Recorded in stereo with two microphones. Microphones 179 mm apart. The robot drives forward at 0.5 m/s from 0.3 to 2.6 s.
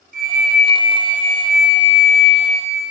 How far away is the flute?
About 1.1 m.